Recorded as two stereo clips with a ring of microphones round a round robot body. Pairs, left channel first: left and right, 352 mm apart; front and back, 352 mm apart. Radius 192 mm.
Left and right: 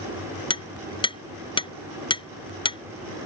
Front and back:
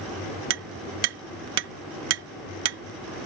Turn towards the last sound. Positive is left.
turn(degrees=165)